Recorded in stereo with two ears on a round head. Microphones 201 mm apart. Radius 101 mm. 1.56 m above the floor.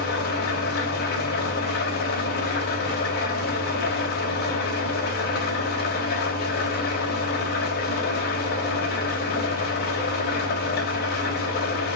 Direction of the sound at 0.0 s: 45° left (ahead or behind).